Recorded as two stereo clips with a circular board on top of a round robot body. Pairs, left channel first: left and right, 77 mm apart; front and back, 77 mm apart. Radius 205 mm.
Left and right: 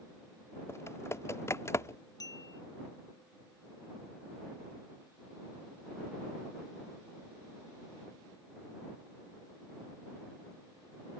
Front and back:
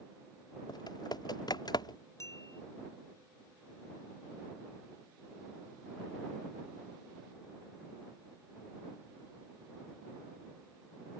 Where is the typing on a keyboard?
35° left.